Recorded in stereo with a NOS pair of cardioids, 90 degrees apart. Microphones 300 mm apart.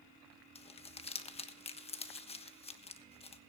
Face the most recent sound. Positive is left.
turn(degrees=20)